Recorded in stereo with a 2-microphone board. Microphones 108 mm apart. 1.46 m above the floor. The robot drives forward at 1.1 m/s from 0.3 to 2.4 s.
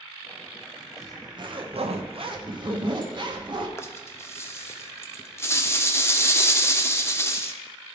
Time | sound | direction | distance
1.0 | a zipper | 30° right (ahead or behind) | 1.2 m
3.8 | a rattle | 25° left (ahead or behind) | 0.5 m